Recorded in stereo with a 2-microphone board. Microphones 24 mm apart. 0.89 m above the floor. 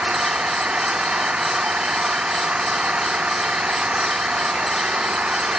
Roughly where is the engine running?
Right.